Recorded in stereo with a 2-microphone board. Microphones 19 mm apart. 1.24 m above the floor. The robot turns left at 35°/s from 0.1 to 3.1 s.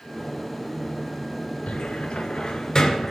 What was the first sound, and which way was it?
A cupboard door, 75° left (ahead or behind).